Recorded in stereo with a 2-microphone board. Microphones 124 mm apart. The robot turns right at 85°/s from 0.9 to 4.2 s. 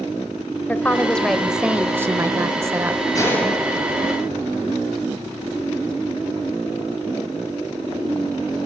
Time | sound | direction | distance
0.7 | a woman speaking | 15° left (ahead or behind) | 0.9 m
3.1 | a gunshot | 30° left (ahead or behind) | 4.5 m